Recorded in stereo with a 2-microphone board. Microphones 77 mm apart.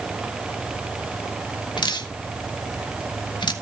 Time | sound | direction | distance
1.8 | dripping | 80° left | 1.5 m